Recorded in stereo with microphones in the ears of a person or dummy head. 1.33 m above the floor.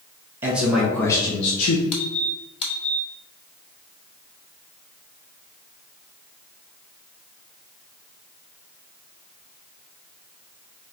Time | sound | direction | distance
0.4 | a man speaking | 15° right (ahead or behind) | 1.1 m
1.9 | a squeak | 25° left (ahead or behind) | 1.0 m